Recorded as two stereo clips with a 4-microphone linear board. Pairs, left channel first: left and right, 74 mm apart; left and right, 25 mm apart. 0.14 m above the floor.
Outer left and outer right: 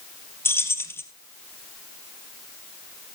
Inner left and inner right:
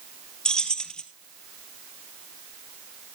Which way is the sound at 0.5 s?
35° left (ahead or behind).